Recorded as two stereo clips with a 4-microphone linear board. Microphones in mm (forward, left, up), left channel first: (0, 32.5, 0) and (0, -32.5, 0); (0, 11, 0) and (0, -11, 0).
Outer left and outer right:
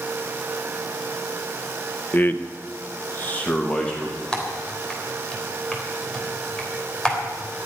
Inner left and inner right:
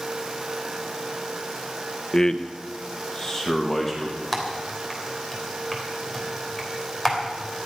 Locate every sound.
2.1 s a man speaking: 30° left (ahead or behind), 1.0 m; by 4.2 s 15° left (ahead or behind), 2.5 m
4.3 s typing on a keyboard: 15° left (ahead or behind), 3.5 m